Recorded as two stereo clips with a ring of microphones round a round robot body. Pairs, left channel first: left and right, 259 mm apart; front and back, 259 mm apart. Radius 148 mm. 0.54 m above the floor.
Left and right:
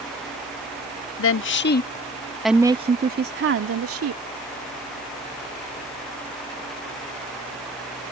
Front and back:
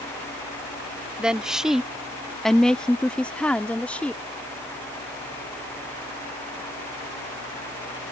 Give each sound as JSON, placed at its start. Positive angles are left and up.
{"t": 1.2, "sound": "a woman speaking", "azimuth_deg": 95}